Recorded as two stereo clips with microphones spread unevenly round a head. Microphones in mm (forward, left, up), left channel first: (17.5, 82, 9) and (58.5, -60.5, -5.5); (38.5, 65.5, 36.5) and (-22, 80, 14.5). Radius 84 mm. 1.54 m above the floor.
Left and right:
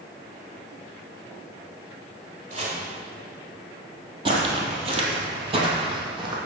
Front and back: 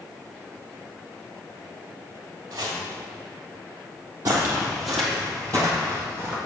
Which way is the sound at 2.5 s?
115° right.